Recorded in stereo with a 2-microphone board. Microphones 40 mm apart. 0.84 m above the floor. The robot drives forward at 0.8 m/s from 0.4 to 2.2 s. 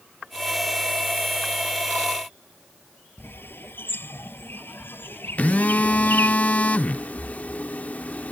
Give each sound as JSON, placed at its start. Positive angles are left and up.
{"t": 3.2, "sound": "a bird", "side_deg": 60}
{"t": 5.4, "sound": "a phone buzzing", "side_deg": 40}